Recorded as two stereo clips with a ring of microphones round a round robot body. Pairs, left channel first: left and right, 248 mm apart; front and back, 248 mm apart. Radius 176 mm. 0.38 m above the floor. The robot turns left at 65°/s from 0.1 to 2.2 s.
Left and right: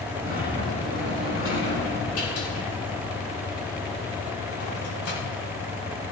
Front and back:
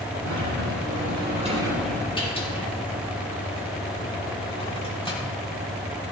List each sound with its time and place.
0.2 s a sliding door: 165° right, 5.5 m; by 5.2 s 70° left, 5.5 m